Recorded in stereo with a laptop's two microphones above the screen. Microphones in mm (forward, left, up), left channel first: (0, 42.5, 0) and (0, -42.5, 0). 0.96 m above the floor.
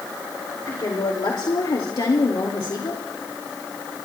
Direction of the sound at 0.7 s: 60° left (ahead or behind).